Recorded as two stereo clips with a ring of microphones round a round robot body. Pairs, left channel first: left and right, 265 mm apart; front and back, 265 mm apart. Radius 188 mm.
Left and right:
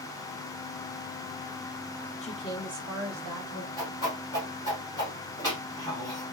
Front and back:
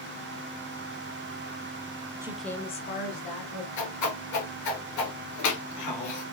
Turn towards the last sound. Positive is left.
turn(degrees=10)